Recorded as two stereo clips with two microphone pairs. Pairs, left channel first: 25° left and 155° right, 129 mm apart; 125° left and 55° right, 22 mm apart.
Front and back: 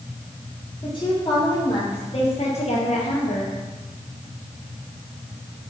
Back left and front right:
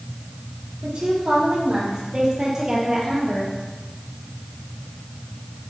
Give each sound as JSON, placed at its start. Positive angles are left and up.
{"t": 0.8, "sound": "a woman speaking", "azimuth_deg": -25, "distance_m": 4.0}